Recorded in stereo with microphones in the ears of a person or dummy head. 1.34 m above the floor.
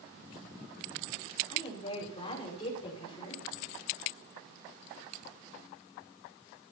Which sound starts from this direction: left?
A woman speaking, at 1.5 s.